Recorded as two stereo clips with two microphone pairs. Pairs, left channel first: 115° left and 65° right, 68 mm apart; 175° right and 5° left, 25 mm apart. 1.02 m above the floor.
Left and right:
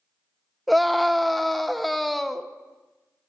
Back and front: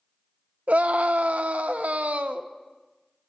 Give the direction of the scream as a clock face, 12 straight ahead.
11 o'clock.